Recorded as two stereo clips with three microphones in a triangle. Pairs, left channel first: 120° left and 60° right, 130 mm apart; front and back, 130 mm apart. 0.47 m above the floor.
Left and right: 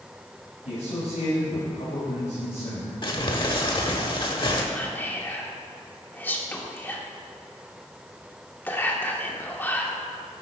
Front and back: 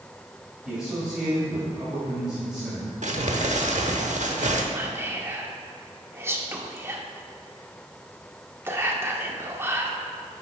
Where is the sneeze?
No sneeze in this recording.